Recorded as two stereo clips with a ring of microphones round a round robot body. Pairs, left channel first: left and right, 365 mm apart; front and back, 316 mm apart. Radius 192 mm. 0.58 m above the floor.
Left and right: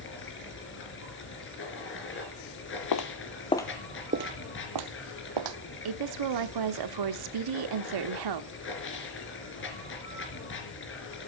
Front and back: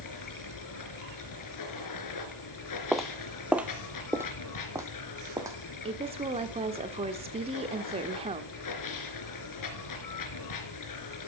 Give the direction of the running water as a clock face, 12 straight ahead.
11 o'clock.